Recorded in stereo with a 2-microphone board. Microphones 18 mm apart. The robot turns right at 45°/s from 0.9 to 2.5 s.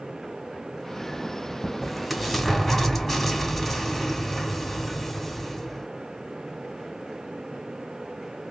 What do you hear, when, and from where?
1.8 s an explosion: 20° right, 2 m; by 5.9 s 10° left, 2 m